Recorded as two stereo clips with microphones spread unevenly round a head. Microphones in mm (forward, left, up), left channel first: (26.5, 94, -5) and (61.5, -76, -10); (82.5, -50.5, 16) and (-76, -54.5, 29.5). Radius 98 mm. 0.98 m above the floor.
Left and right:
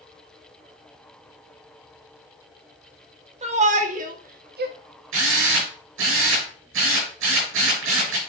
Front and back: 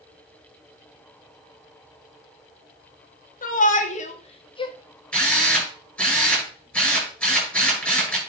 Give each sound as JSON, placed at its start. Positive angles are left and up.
{"t": 3.4, "sound": "a shout", "azimuth_deg": -30, "distance_m": 2.0}
{"t": 5.1, "sound": "a drill", "azimuth_deg": -85, "distance_m": 6.5}